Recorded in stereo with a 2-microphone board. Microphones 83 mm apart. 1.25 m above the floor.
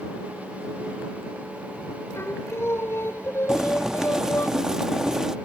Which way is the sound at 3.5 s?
10° right (ahead or behind).